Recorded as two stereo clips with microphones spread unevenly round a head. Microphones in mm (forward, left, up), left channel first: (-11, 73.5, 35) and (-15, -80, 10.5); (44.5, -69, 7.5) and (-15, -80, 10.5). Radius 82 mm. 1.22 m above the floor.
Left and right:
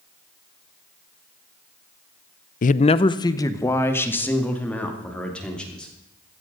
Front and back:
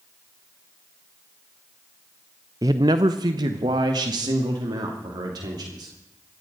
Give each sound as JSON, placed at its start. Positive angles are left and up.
{"t": 2.6, "sound": "a man speaking", "azimuth_deg": 130, "distance_m": 0.5}